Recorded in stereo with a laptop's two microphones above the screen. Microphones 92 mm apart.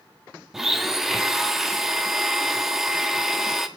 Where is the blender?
5° right (ahead or behind), 0.6 m.